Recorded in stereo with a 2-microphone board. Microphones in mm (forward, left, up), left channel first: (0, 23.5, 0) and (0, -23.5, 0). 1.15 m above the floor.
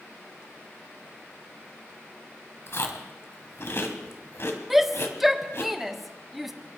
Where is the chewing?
60° left (ahead or behind), 1.8 m.